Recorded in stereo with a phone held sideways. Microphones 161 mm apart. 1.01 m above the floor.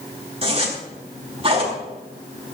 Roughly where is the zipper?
Right.